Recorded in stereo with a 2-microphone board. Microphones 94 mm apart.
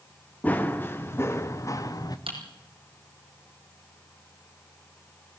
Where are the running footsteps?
15° left (ahead or behind), 2 m; by 2.2 s 45° left (ahead or behind), 1.7 m.